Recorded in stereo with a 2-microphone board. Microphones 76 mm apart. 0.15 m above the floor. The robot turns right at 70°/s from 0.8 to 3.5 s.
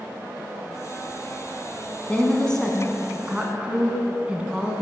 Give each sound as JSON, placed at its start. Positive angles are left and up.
{"t": 2.1, "sound": "a woman speaking", "side_deg": 15, "distance_m": 1.1}